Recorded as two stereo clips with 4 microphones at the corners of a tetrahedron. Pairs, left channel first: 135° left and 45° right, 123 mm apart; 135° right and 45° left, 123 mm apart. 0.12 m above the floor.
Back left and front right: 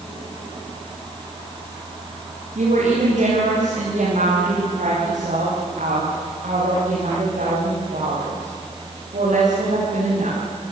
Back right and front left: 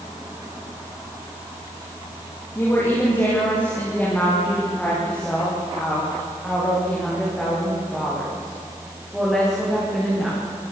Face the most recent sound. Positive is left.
turn(degrees=-40)